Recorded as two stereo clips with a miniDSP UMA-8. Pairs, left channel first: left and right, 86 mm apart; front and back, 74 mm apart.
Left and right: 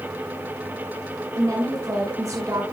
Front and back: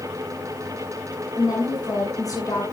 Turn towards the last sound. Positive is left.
turn(degrees=-40)